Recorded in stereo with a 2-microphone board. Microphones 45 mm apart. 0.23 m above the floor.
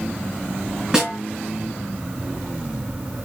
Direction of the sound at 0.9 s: 15° right (ahead or behind).